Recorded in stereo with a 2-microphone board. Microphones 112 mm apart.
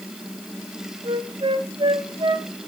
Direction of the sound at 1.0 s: 55° right (ahead or behind).